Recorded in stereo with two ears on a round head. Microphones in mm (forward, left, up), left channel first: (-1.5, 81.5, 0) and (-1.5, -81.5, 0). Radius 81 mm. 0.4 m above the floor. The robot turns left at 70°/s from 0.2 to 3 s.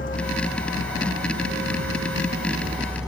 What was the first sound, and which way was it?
A vehicle, 45° left (ahead or behind).